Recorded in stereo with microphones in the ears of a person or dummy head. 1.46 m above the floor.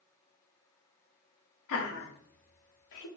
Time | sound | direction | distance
1.7 | laughter | 75° left (ahead or behind) | 0.9 m